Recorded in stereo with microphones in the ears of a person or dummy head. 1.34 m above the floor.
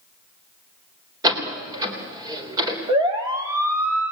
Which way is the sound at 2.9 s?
25° right (ahead or behind).